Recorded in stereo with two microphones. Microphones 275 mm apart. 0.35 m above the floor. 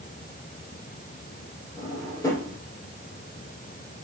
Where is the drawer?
10° left (ahead or behind), 7 m.